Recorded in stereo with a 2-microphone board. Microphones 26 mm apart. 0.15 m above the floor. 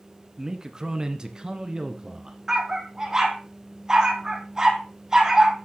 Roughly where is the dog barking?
Centre.